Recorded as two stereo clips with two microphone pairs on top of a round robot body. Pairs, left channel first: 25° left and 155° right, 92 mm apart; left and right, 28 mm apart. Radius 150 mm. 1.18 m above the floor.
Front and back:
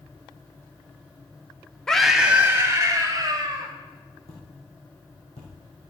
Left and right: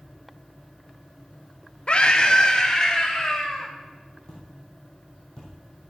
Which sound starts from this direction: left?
A scream, at 1.9 s.